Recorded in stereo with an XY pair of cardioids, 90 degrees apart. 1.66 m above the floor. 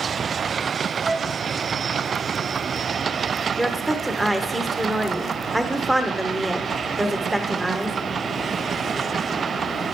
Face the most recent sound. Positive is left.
turn(degrees=-15)